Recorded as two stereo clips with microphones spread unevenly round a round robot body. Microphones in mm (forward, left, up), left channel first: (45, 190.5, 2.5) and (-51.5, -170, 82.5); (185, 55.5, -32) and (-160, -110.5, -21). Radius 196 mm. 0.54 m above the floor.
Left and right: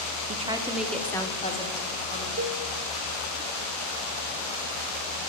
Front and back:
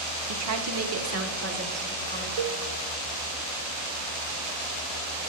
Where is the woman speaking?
175° left, 0.9 m; by 2.3 s 140° left, 1.8 m.